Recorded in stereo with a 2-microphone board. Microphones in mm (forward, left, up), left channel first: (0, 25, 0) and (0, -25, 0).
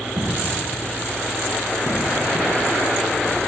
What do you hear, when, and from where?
0.2 s footsteps: 75° right (ahead or behind), 2.5 m; by 3.5 s 55° right (ahead or behind), 2.5 m